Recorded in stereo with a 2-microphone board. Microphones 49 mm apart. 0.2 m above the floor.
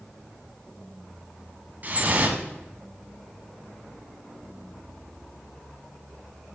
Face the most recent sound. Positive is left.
turn(degrees=-35)  # may be behind; listen again after turning